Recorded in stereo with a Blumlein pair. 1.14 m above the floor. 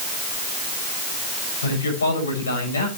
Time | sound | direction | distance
1.6 | a man speaking | 70° left | 6.5 m